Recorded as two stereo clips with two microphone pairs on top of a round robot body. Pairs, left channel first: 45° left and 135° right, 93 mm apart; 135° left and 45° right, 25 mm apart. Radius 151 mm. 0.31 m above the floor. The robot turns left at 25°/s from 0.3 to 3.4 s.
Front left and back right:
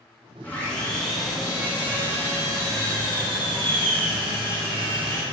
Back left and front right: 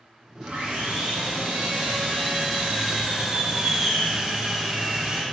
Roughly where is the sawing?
Ahead right.